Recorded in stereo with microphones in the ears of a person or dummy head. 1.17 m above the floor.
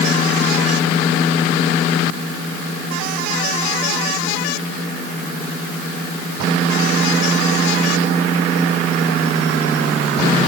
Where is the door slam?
No door slam in this recording.